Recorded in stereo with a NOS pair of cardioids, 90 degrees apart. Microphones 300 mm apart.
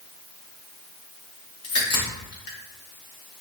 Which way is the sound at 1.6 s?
50° left.